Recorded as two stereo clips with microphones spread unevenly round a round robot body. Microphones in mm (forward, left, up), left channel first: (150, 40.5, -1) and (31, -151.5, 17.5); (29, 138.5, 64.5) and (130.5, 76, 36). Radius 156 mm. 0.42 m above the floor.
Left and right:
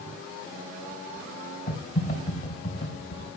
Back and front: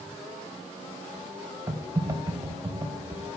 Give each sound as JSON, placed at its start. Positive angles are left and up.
{"t": 1.7, "sound": "typing on a keyboard", "azimuth_deg": 30, "distance_m": 3.0}